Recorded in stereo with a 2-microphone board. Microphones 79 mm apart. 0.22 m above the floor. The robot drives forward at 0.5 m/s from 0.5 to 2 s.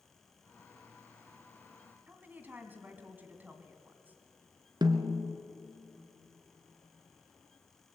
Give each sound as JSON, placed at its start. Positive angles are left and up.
{"t": 2.1, "sound": "a woman speaking", "side_deg": -20, "distance_m": 2.0}
{"t": 4.8, "sound": "a snare drum", "side_deg": -65, "distance_m": 1.6}